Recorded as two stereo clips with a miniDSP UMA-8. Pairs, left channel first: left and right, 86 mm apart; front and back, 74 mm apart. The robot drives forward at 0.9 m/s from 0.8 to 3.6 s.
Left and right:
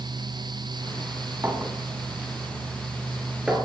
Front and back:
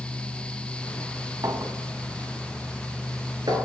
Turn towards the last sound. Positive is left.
turn(degrees=-170)